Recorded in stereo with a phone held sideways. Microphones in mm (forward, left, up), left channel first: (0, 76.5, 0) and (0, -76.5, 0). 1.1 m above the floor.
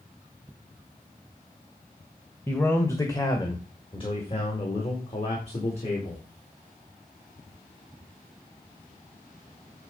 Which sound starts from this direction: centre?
A man speaking, at 2.5 s.